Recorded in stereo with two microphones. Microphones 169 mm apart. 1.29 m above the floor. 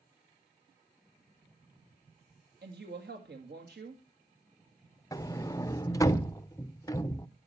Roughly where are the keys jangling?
No keys jangling in this recording.